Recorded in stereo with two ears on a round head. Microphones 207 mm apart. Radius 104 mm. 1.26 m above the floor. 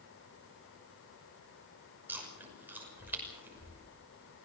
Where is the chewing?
10° right (ahead or behind), 6 m.